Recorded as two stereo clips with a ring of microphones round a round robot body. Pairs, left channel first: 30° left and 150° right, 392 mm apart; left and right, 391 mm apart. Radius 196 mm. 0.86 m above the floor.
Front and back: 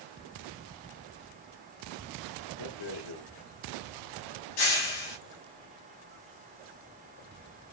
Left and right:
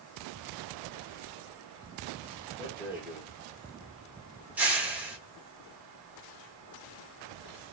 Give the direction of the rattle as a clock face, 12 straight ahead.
12 o'clock.